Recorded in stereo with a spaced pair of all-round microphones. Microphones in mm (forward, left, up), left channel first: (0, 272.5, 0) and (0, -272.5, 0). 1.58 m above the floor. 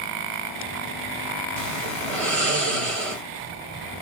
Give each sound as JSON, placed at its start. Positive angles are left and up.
{"t": 1.6, "sound": "snoring", "side_deg": -75, "distance_m": 1.2}